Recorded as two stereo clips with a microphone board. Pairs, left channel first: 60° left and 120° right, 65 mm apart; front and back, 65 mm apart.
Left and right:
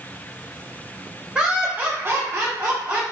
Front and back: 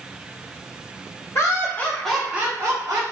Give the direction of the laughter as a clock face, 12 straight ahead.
1 o'clock.